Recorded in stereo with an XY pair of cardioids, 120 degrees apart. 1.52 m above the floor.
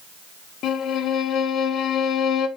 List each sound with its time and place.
0.6 s a violin: 65° left, 1.8 m